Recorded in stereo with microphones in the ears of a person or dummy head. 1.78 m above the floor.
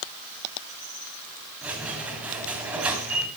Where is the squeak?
10° right (ahead or behind), 2 m.